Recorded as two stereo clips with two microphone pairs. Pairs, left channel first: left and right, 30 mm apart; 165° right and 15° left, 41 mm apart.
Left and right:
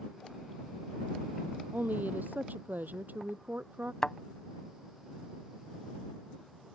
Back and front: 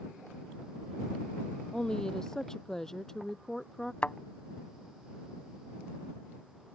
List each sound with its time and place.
1.7 s a woman speaking: 90° right; by 3.9 s 85° right
4.0 s a thud: 150° left